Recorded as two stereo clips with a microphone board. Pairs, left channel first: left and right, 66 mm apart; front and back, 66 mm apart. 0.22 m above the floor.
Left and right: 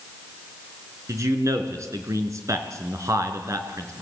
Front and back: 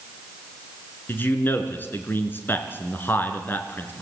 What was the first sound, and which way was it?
A man speaking, 60° right.